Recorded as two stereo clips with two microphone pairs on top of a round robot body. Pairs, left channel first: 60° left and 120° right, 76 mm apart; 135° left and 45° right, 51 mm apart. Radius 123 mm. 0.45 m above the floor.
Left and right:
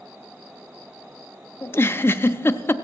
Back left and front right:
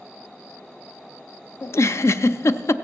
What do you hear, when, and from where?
1.6 s a giggle: 115° left, 0.7 m